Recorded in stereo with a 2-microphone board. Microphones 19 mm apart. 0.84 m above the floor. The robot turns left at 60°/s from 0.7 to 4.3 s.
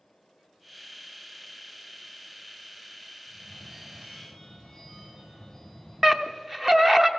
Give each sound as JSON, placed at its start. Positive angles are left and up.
{"t": 3.3, "sound": "a phone ringing", "azimuth_deg": -120, "distance_m": 5.0}
{"t": 6.0, "sound": "a scream", "side_deg": -10, "distance_m": 0.7}